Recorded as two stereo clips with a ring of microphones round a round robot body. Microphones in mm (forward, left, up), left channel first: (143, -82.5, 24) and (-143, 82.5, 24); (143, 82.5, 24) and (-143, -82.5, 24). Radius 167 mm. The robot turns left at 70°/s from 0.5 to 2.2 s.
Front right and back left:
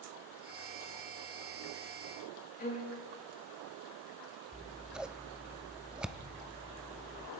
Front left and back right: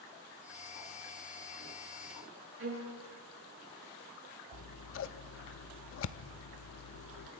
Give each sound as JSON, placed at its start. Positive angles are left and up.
{"t": 2.6, "sound": "a violin", "azimuth_deg": -95, "distance_m": 6.5}
{"t": 4.5, "sound": "scissors", "azimuth_deg": 65, "distance_m": 0.7}